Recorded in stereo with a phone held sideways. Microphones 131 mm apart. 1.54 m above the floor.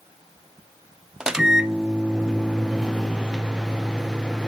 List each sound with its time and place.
1.2 s a microwave: 5° right (ahead or behind), 0.6 m